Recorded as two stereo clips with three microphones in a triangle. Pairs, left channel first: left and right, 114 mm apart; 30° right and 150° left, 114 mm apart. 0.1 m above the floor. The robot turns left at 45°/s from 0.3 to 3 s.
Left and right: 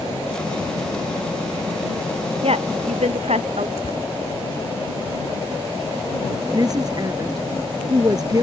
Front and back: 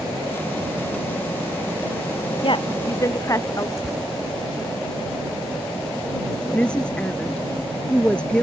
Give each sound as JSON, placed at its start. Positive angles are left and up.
{"t": 2.4, "sound": "a woman speaking", "azimuth_deg": -65}
{"t": 3.8, "sound": "tearing paper", "azimuth_deg": 65}
{"t": 6.5, "sound": "a woman speaking", "azimuth_deg": -105}